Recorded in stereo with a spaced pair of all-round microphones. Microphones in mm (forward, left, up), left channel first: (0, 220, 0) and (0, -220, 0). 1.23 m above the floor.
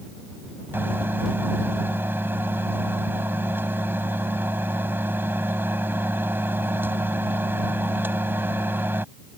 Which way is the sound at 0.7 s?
5° right (ahead or behind).